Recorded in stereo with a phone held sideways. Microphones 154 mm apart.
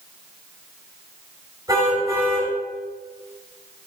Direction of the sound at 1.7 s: 25° right (ahead or behind).